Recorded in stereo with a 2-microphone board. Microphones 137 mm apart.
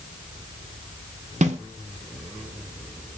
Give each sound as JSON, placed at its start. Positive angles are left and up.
{"t": 1.4, "sound": "a snare drum", "side_deg": -60, "distance_m": 0.5}